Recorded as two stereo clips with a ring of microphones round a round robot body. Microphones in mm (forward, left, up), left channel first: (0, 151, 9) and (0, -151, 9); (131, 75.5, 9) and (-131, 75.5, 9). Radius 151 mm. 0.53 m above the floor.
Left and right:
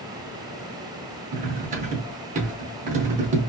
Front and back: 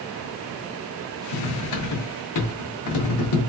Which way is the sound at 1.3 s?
25° right.